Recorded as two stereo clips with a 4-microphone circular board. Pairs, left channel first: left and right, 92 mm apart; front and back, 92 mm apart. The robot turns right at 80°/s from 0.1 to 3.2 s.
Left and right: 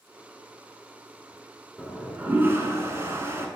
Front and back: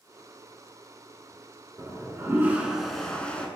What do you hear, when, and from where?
1.8 s a toilet flushing: straight behind, 0.5 m; by 3.5 s 65° right, 0.5 m